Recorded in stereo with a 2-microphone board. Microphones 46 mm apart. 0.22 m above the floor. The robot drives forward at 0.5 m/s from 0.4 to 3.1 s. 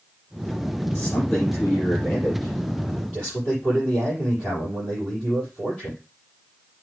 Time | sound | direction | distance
0.9 | a man speaking | 25° left (ahead or behind) | 5.5 m